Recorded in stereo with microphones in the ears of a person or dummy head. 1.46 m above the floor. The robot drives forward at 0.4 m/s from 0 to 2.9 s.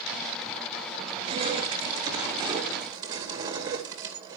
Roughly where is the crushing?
Right.